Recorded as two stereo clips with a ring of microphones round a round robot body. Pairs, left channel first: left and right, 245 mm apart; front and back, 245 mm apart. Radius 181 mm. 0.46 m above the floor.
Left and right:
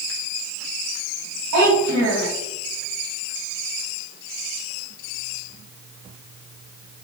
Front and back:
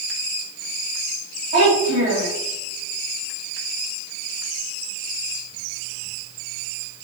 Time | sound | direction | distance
1.5 | a child speaking | 110° right | 3 m